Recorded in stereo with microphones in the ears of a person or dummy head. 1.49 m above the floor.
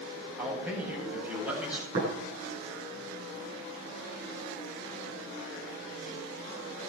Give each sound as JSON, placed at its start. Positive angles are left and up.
{"t": 0.4, "sound": "a man speaking", "side_deg": -15, "distance_m": 8.5}
{"t": 1.9, "sound": "tapping", "side_deg": -55, "distance_m": 9.5}